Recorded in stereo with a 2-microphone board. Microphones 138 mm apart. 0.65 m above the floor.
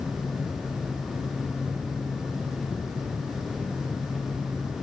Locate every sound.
Only background noise.